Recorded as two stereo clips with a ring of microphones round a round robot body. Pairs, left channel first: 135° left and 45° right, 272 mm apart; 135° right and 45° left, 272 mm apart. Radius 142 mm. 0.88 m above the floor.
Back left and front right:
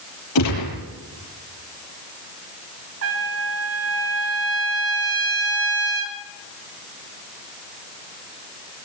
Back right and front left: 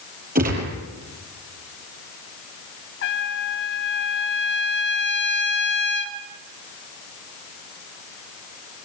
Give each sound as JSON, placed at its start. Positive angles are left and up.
{"t": 0.3, "sound": "a gunshot", "azimuth_deg": 105, "distance_m": 7.0}
{"t": 3.0, "sound": "a trumpet", "azimuth_deg": -85, "distance_m": 2.5}